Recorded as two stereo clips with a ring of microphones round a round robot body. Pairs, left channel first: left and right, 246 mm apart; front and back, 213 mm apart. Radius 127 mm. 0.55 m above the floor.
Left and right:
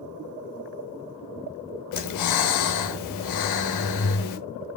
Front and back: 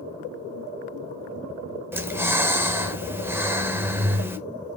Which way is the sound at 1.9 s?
100° left.